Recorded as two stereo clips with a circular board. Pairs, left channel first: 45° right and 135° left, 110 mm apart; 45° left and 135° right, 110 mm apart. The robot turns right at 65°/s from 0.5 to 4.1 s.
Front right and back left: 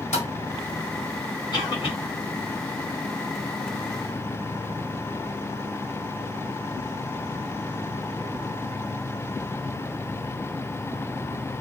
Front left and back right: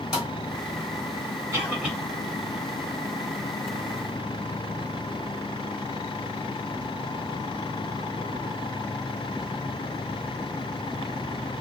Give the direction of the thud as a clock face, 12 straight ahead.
2 o'clock.